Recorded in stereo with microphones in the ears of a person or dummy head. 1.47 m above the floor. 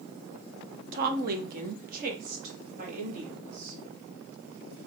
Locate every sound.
0.9 s a woman speaking: 55° right (ahead or behind), 0.8 m; by 3.8 s 40° right (ahead or behind), 2.5 m